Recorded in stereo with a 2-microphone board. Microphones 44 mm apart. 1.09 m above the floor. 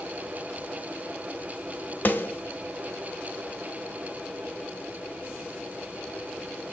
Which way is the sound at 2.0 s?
45° left (ahead or behind).